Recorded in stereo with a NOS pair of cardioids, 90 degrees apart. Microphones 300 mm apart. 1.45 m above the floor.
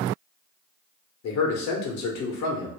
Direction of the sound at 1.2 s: 70° left.